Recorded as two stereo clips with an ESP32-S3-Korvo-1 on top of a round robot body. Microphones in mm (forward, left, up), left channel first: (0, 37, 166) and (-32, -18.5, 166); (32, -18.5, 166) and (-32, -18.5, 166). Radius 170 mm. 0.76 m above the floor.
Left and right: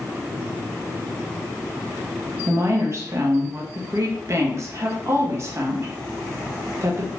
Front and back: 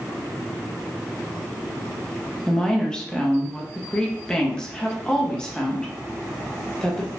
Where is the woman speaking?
75° right, 1.0 m.